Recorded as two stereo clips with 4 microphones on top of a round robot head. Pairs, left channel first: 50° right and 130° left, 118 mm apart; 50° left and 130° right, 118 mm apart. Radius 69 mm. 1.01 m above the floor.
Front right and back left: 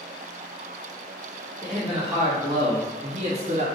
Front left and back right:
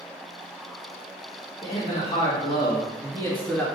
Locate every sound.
1.6 s a man speaking: 30° left, 1.3 m; by 3.7 s 130° left, 1.5 m